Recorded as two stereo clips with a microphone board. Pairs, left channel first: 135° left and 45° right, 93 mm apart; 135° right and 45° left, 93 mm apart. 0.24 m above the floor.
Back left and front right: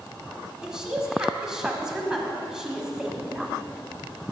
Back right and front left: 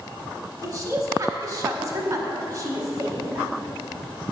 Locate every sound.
0.6 s a woman speaking: 35° left, 1.1 m